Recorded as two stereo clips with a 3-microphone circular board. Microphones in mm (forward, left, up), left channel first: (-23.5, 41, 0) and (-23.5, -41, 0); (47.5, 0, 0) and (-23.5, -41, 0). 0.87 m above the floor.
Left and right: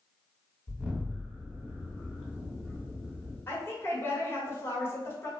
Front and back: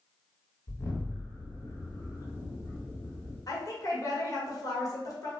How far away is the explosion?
About 1.2 m.